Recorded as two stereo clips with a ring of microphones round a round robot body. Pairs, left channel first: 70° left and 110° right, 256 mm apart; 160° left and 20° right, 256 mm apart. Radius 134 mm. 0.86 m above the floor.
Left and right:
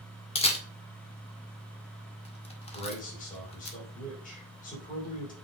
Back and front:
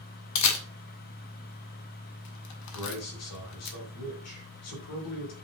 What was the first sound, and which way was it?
A camera shutter, 135° left.